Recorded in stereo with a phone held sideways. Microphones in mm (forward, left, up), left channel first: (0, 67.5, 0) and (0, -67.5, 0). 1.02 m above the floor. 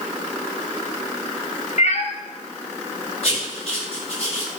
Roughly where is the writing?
Left.